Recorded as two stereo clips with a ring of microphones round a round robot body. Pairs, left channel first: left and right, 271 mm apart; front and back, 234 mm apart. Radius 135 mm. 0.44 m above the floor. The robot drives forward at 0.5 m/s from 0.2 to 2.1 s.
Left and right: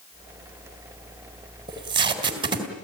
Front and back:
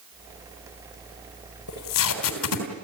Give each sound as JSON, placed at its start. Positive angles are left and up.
{"t": 1.7, "sound": "tape being pulled", "azimuth_deg": -15, "distance_m": 3.5}